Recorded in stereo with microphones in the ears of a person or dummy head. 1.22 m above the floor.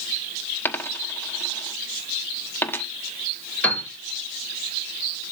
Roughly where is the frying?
No frying in this recording.